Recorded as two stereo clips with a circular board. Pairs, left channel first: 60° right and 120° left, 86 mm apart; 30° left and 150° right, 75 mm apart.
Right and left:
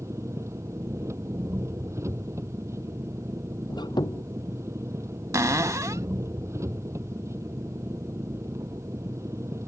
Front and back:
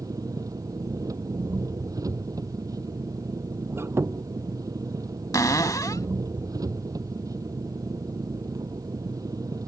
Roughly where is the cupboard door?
Left.